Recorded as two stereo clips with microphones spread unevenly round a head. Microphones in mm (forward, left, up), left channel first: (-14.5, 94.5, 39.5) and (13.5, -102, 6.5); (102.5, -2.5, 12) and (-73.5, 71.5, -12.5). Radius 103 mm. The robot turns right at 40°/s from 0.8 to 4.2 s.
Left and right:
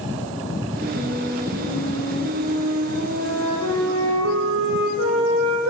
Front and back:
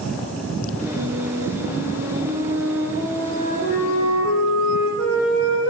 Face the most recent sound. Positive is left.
turn(degrees=-50)